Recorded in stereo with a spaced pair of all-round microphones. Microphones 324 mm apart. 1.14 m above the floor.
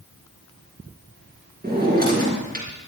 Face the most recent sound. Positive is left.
turn(degrees=-25)  # may be behind; listen again after turning